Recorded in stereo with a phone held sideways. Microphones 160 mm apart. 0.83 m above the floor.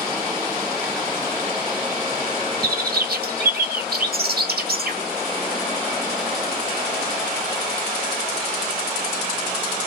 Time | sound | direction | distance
2.6 | a bird | 75° right (ahead or behind) | 1.1 m